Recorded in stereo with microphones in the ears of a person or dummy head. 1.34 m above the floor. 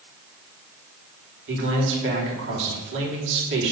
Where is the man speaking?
60° right (ahead or behind), 3 m.